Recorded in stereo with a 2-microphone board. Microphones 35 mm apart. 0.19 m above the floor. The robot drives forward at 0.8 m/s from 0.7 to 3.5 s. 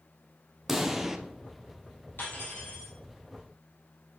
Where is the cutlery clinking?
70° left (ahead or behind), 3 m; by 2.9 s 60° left (ahead or behind), 3.5 m.